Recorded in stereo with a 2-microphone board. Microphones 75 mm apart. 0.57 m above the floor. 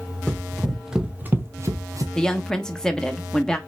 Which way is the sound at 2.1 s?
10° left (ahead or behind).